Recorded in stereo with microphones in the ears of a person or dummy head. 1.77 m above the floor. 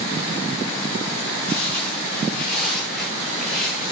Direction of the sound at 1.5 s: 10° left (ahead or behind).